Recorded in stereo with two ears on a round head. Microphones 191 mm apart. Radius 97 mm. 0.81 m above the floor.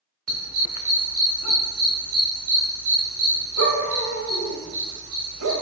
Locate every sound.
0.3 s a dog barking: 75° right (ahead or behind), 1.4 m